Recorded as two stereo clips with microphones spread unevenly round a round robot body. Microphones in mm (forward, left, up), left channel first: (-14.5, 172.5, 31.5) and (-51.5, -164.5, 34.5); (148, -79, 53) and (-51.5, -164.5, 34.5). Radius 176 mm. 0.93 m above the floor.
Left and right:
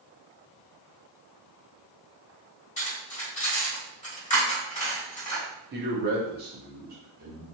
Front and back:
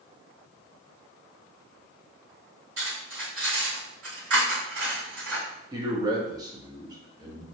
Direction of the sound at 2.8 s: 155° left.